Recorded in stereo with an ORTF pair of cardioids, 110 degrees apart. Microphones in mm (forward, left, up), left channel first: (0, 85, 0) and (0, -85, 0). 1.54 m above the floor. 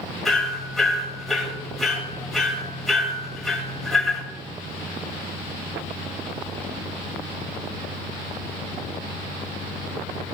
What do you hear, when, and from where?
0.2 s hammering: straight ahead, 3.5 m